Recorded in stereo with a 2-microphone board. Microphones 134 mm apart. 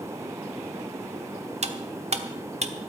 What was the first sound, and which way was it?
Cutlery clinking, 55° right (ahead or behind).